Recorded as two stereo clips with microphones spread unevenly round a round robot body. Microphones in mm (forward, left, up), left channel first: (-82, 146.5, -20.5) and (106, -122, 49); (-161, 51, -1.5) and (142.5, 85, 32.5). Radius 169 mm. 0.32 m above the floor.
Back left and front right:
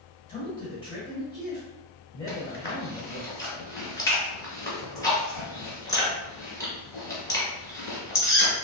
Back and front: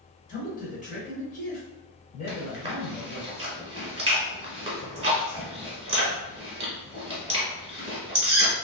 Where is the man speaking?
165° left, 1.1 m.